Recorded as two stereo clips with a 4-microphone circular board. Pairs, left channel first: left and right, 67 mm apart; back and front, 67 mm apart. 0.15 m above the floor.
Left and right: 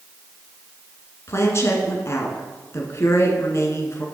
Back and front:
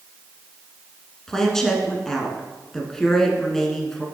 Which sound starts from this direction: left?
A woman speaking, at 1.3 s.